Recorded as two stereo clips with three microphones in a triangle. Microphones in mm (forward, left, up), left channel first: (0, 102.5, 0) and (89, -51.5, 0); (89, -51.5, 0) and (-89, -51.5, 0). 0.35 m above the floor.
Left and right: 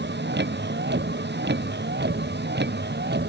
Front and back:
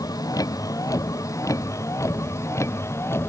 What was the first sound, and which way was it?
A vehicle, 70° right.